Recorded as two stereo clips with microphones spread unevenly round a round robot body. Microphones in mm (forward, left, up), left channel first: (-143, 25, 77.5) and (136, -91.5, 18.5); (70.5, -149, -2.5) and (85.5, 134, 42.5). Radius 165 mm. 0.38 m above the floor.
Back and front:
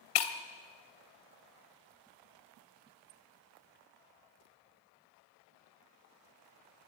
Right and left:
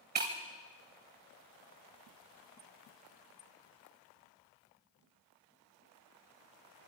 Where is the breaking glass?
150° left, 1.6 m.